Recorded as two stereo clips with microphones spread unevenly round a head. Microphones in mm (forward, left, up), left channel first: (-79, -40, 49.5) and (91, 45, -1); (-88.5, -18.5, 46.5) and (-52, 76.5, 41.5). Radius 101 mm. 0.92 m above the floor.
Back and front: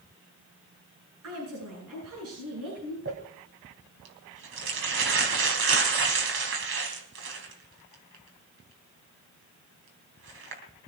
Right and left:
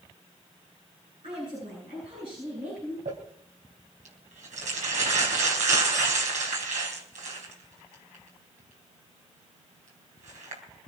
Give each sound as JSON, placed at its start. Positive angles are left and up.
{"t": 1.2, "sound": "a woman speaking", "azimuth_deg": 10, "distance_m": 9.0}
{"t": 3.0, "sound": "crumpling", "azimuth_deg": 55, "distance_m": 3.5}